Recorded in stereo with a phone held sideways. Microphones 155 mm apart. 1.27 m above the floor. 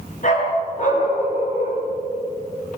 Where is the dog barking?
60° left (ahead or behind), 8 m.